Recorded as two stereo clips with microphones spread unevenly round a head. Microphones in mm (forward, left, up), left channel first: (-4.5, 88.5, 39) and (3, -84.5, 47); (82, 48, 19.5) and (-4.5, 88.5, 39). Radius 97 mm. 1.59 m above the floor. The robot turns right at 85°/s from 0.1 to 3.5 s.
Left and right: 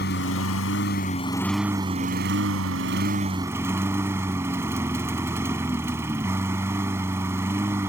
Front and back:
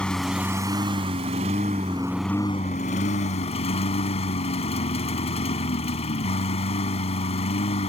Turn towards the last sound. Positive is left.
turn(degrees=-10)